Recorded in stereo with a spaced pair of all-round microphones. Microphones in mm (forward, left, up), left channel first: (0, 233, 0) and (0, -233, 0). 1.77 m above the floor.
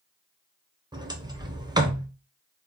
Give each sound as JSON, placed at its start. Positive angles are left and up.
{"t": 0.9, "sound": "a sliding door", "side_deg": -10, "distance_m": 0.7}